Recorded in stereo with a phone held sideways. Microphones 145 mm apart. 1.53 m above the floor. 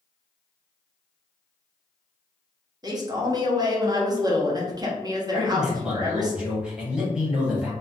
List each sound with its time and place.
2.8 s a man speaking: 25° right (ahead or behind), 0.7 m
5.3 s a man speaking: 5° right (ahead or behind), 1.0 m